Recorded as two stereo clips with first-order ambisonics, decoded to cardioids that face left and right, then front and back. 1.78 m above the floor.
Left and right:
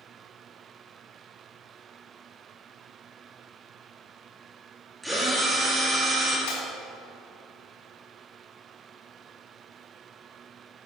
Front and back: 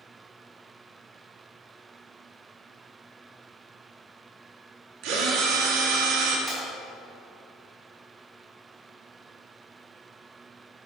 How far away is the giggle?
I don't hear a giggle.